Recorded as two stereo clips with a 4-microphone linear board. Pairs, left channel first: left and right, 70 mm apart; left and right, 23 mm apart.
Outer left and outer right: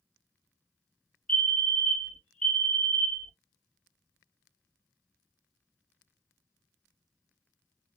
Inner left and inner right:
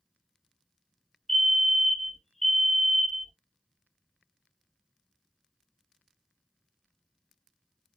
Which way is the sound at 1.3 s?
15° left (ahead or behind).